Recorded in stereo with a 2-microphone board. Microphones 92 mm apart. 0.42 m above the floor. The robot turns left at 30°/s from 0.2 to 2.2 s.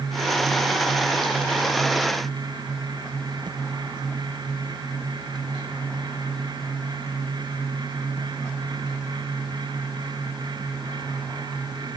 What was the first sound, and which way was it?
Only background noise.